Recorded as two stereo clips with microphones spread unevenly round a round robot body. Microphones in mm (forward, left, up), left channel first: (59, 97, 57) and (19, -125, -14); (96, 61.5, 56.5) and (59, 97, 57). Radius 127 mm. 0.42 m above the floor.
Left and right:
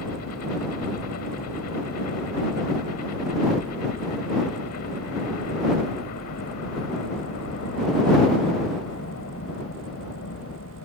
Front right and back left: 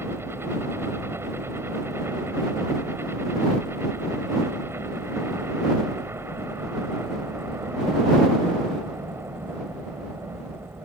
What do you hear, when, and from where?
0.0 s a helicopter: 110° left